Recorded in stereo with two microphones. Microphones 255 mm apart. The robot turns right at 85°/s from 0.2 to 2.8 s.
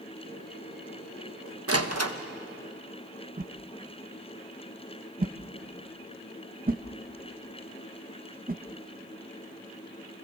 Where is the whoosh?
35° right (ahead or behind), 0.8 m.